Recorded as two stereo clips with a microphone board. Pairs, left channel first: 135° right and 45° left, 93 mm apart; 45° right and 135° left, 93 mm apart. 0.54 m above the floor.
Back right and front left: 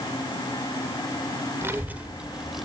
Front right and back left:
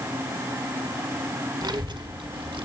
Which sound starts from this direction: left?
A child speaking, at 1.6 s.